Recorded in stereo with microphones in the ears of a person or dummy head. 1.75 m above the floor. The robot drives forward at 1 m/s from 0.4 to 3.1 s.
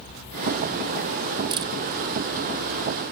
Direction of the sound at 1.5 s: 25° right (ahead or behind).